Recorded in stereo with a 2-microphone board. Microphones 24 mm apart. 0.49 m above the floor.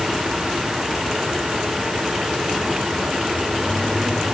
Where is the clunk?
No clunk in this recording.